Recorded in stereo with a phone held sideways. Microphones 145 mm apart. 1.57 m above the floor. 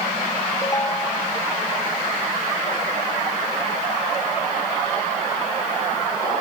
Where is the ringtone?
25° left (ahead or behind).